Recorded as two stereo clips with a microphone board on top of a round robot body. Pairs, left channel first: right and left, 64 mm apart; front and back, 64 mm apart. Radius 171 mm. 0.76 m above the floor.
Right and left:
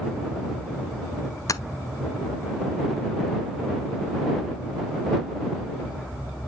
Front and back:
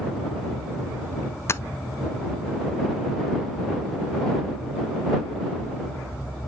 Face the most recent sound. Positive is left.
turn(degrees=-55)